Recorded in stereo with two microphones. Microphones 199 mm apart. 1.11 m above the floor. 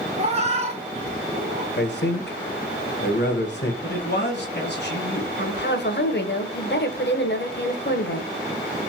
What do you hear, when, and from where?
0.2 s a cat meowing: 30° right (ahead or behind), 0.7 m
1.8 s a man speaking: 60° left (ahead or behind), 0.9 m
3.8 s a man speaking: 60° left (ahead or behind), 1.2 m
5.4 s a woman speaking: 60° left (ahead or behind), 0.6 m